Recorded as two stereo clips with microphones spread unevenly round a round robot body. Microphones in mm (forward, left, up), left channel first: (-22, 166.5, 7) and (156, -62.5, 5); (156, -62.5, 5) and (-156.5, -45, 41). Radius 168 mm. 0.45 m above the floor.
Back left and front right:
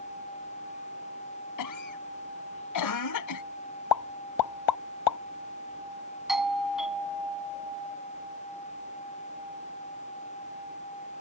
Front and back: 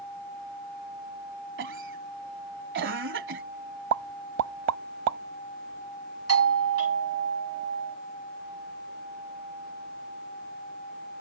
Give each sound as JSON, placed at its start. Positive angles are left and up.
{"t": 1.6, "sound": "a cough", "azimuth_deg": 120}
{"t": 3.9, "sound": "a pop", "azimuth_deg": 130}
{"t": 6.3, "sound": "a doorbell", "azimuth_deg": -140}